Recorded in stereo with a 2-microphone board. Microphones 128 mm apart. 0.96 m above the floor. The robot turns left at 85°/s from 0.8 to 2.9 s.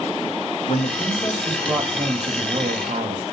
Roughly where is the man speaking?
Ahead left.